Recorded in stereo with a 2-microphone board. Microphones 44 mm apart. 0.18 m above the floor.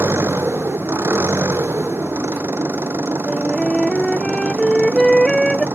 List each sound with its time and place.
0.0 s an engine running: 75° right (ahead or behind)
3.3 s a flute: 15° left (ahead or behind)